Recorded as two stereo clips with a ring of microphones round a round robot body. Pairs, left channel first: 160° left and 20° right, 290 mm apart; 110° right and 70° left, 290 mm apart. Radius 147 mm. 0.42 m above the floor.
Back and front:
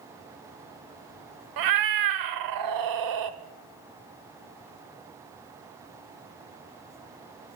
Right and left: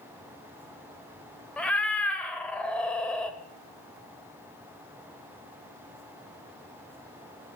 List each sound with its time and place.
1.6 s a cat meowing: 25° right, 0.8 m